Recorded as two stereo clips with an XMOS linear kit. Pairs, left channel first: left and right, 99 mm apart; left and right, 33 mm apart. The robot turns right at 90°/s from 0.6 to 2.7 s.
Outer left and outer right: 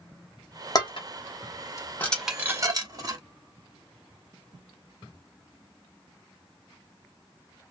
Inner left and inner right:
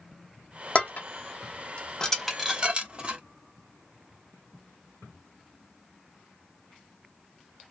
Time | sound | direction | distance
0.8 | dishes clattering | 40° left (ahead or behind) | 0.9 m